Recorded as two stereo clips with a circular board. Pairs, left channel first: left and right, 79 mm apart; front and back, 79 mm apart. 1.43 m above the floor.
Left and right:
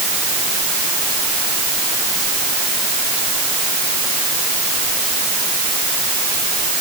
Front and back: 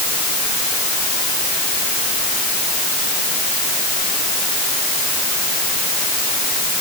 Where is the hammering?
I don't hear hammering.